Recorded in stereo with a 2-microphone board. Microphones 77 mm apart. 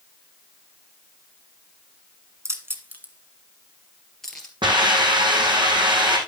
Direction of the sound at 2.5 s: 40° right (ahead or behind).